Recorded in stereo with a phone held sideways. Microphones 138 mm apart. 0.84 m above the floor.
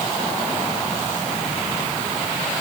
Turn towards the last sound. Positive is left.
No sound to turn to.